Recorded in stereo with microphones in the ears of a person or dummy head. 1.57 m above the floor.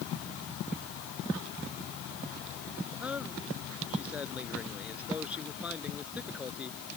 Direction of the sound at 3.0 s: 5° right (ahead or behind).